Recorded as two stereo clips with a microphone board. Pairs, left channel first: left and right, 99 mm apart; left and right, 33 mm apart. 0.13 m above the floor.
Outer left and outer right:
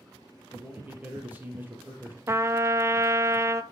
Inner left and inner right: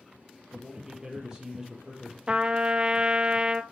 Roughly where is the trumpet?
Right.